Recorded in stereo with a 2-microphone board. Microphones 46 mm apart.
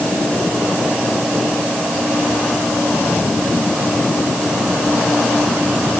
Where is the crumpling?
No crumpling in this recording.